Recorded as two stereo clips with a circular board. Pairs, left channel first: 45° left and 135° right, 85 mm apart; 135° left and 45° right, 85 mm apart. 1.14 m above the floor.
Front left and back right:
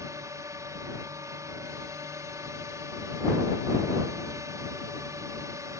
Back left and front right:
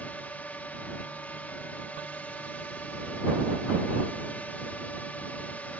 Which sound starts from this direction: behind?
A drone, at 0.0 s.